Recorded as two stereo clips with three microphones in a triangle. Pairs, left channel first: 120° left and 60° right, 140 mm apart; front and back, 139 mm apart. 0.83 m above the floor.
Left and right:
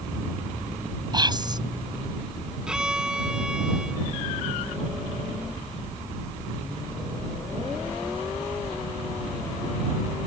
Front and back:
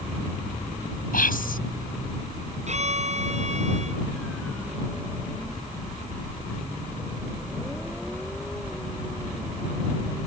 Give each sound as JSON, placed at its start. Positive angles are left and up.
{"t": 1.1, "sound": "whispering", "azimuth_deg": 0}
{"t": 2.7, "sound": "a violin", "azimuth_deg": -145}